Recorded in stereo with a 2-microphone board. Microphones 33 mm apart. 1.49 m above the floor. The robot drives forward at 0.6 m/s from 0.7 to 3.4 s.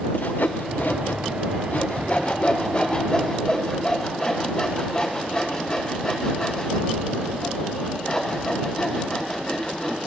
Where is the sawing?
70° left (ahead or behind), 0.7 m; by 10.0 s 25° left (ahead or behind), 1.7 m.